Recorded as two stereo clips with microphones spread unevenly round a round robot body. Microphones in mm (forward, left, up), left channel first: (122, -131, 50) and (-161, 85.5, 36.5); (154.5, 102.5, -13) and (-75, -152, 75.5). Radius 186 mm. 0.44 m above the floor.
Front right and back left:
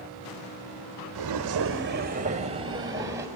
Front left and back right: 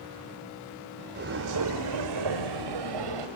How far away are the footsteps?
About 0.9 m.